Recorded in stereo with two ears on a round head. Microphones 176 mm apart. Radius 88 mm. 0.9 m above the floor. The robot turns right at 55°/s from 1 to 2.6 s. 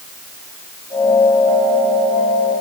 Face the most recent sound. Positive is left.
No sound to turn to.